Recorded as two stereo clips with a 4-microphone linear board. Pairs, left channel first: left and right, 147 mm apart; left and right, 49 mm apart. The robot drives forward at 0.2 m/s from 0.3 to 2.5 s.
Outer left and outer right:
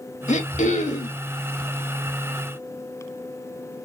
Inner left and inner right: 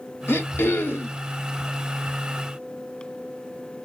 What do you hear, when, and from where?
0.3 s throat clearing: 60° left (ahead or behind), 1.3 m